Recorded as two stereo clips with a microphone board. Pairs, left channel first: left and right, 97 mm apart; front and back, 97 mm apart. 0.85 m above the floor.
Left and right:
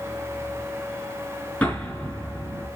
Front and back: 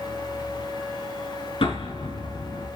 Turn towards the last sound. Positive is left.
turn(degrees=10)